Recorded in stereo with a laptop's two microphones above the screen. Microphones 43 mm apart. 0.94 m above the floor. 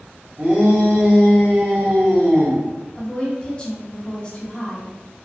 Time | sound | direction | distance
0.4 | a shout | 30° right (ahead or behind) | 1.0 m
3.0 | a woman speaking | 25° left (ahead or behind) | 0.6 m